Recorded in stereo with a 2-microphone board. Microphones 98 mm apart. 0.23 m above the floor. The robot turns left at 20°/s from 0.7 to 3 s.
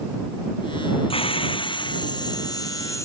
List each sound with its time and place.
1.1 s a hiss: 65° left; by 3.0 s 30° left